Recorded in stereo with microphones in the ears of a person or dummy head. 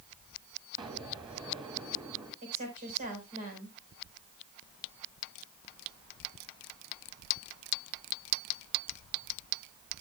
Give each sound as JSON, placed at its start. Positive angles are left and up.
{"t": 0.8, "sound": "an explosion", "side_deg": -25, "distance_m": 2.5}
{"t": 2.4, "sound": "a woman speaking", "side_deg": -40, "distance_m": 4.5}